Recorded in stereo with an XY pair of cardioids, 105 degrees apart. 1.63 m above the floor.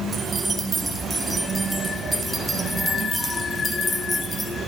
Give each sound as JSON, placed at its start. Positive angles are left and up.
{"t": 0.1, "sound": "keys jangling", "azimuth_deg": -25, "distance_m": 4.0}